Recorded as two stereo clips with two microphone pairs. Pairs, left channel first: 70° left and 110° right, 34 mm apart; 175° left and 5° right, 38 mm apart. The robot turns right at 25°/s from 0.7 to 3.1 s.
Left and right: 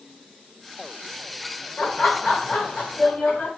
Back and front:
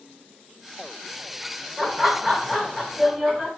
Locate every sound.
1.8 s laughter: 70° left, 1.2 m; by 3.5 s 105° left, 1.2 m